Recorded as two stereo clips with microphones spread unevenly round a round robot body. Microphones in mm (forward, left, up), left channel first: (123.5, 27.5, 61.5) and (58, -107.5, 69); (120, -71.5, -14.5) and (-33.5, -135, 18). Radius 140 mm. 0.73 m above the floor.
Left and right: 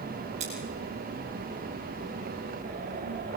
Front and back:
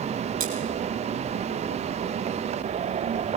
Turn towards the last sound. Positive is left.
turn(degrees=180)